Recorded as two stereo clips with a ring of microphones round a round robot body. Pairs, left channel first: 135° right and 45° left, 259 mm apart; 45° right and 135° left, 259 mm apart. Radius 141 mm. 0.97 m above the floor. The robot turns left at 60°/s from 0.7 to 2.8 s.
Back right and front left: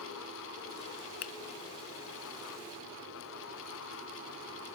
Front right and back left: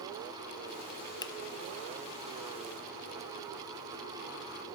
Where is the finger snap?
115° right, 0.7 m; by 1.3 s 125° right, 0.7 m.